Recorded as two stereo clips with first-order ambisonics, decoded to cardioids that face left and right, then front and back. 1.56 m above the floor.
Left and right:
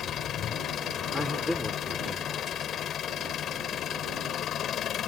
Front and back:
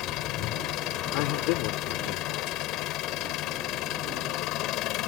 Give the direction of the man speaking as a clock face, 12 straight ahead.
12 o'clock.